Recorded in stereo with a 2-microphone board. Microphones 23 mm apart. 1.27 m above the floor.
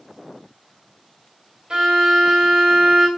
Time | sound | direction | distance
1.7 | a violin | 40° right (ahead or behind) | 2.5 m